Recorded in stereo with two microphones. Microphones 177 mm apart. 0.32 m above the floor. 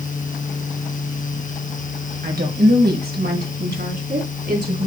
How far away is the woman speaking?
About 1.9 m.